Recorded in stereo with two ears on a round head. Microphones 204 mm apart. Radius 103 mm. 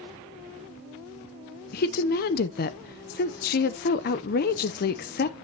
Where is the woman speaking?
40° left (ahead or behind), 0.6 m.